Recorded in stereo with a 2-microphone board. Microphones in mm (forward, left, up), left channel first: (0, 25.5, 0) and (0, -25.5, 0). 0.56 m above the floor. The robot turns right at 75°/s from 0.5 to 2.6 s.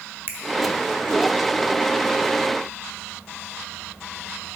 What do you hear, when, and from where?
0.3 s a finger snap: 50° right (ahead or behind), 0.9 m